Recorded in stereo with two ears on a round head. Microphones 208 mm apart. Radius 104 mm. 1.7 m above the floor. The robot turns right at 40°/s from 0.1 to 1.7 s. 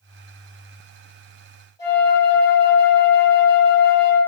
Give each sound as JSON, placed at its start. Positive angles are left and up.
{"t": 1.8, "sound": "a flute", "side_deg": 20, "distance_m": 1.1}